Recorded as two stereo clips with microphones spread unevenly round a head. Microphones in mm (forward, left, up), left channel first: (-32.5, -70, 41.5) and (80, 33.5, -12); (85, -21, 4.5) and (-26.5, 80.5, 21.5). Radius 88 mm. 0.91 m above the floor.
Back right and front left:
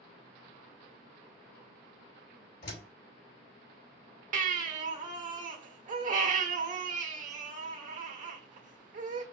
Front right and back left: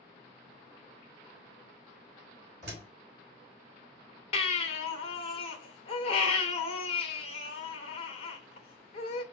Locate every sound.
2.6 s a door slam: 175° right, 3 m
4.3 s a baby crying: 5° left, 1.3 m